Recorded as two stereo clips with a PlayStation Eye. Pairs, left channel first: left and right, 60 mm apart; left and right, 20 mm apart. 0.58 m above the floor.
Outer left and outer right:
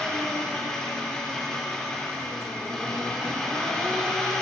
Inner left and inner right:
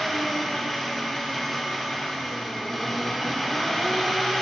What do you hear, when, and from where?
0.0 s an engine running: 10° left (ahead or behind), 1.0 m